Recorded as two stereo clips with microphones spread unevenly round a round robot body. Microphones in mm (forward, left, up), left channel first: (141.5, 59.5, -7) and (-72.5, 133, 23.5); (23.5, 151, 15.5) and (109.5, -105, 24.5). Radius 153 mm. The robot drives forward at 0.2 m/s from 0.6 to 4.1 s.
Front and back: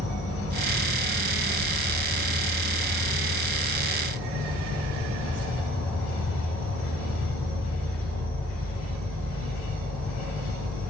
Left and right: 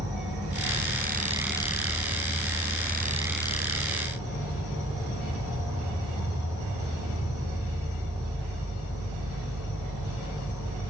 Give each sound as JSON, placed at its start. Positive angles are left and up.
{"t": 0.0, "sound": "an insect", "azimuth_deg": -145, "distance_m": 4.5}